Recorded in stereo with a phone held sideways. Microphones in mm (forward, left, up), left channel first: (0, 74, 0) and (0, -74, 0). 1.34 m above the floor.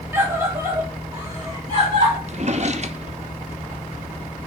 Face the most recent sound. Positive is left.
turn(degrees=-50)  # may be behind; listen again after turning